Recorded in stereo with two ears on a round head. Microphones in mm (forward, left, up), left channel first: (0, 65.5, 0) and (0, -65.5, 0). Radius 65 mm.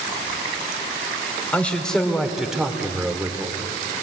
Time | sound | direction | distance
1.5 | a man speaking | 10° left (ahead or behind) | 2.5 m